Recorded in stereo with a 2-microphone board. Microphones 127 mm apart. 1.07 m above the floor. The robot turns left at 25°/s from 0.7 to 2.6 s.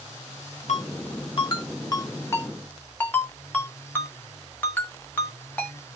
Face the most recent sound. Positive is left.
turn(degrees=15)  # may be behind; listen again after turning